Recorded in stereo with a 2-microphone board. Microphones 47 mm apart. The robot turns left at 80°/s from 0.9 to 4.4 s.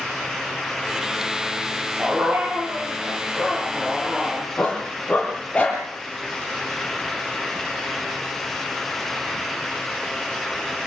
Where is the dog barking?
15° right, 8.5 m; by 5.8 s 155° left, 8.5 m.